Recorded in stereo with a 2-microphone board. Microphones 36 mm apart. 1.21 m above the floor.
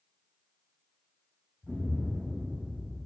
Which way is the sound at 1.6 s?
15° left (ahead or behind).